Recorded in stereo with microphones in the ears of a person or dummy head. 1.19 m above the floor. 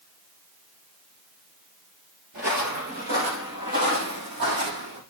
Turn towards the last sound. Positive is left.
turn(degrees=-65)  # may be behind; listen again after turning